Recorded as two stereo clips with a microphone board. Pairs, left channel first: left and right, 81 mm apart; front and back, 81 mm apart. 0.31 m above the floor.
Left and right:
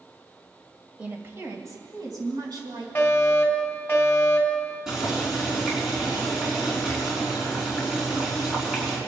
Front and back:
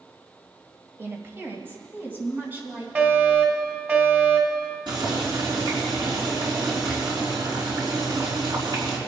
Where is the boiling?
175° right, 4 m.